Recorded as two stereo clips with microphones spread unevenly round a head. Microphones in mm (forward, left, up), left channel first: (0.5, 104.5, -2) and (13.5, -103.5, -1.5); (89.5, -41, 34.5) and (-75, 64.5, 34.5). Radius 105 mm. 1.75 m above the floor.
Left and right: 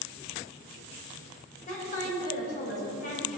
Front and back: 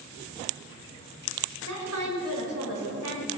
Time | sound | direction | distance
1.7 | a woman speaking | 150° left | 6 m